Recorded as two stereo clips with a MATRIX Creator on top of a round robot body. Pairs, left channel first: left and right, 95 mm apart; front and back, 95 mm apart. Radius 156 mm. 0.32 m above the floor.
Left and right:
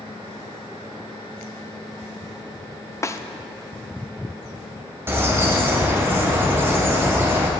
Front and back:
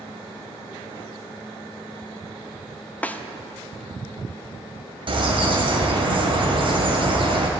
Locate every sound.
3.0 s a snare drum: 60° left, 0.9 m
5.1 s a bird: 155° right, 1.9 m